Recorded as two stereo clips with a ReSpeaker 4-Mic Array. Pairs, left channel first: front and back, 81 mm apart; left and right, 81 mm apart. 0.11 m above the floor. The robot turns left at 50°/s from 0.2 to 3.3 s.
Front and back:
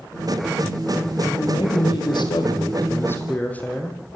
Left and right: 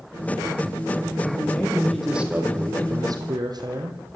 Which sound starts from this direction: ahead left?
A man speaking, at 1.2 s.